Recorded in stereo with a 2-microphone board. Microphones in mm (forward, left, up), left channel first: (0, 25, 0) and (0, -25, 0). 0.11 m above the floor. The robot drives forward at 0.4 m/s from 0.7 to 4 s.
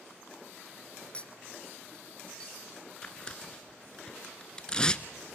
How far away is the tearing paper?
About 0.7 m.